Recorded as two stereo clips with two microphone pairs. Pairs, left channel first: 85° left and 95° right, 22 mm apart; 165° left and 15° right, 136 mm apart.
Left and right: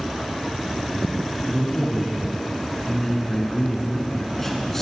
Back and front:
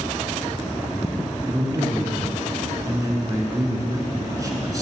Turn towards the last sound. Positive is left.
turn(degrees=25)